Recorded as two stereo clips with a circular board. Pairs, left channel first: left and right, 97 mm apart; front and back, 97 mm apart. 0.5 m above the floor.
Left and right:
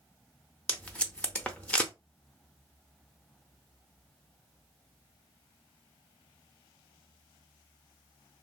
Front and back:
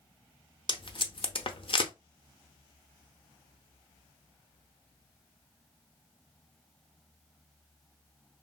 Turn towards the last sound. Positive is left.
turn(degrees=15)